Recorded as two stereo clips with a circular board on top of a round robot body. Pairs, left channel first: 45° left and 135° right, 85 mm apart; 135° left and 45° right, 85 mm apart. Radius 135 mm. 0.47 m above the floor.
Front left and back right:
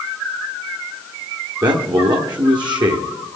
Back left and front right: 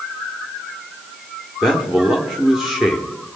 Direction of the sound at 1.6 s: 130° right.